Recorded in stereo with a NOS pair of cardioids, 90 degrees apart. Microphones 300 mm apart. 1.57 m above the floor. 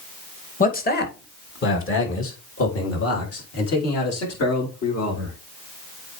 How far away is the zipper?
No zipper in this recording.